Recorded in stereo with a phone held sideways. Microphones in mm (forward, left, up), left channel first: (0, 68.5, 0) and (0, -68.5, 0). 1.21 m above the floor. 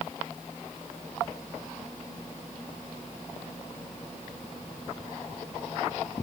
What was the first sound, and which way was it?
Only background noise.